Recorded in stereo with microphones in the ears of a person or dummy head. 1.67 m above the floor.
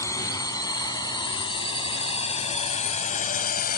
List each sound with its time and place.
0.0 s a drone: 20° left (ahead or behind); by 3.8 s 45° left (ahead or behind)